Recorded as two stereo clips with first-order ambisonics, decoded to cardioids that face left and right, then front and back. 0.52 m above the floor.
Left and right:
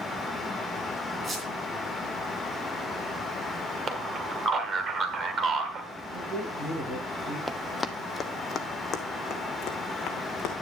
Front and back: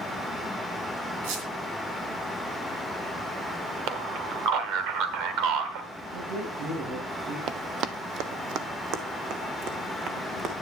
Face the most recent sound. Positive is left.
turn(degrees=135)